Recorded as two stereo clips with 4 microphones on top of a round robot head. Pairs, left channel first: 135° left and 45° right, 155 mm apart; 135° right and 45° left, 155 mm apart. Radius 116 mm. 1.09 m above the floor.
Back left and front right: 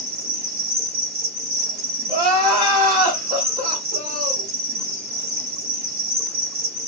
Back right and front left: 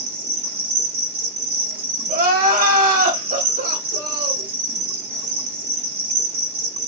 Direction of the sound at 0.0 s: 10° right.